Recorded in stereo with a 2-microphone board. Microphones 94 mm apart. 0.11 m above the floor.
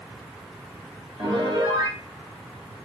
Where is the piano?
65° right (ahead or behind), 3 m.